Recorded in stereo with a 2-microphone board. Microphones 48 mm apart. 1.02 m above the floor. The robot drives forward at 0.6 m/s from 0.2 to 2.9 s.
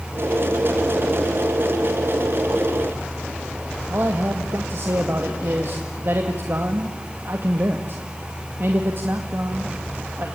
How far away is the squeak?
No squeak in this recording.